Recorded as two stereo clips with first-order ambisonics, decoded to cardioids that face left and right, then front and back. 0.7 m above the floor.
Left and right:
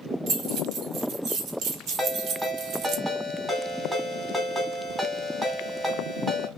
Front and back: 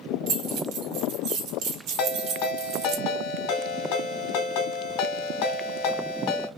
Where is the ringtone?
5° right, 1.7 m.